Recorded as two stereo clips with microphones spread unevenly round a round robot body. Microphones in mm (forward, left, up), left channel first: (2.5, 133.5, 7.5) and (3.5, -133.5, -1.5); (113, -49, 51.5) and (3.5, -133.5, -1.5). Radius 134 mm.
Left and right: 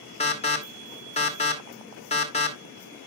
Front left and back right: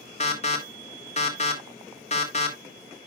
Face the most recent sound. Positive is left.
turn(degrees=55)